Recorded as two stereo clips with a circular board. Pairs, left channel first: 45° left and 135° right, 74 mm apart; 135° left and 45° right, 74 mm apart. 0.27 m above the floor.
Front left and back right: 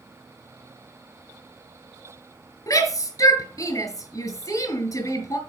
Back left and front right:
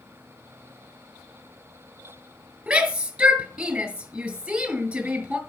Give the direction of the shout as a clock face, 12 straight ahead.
11 o'clock.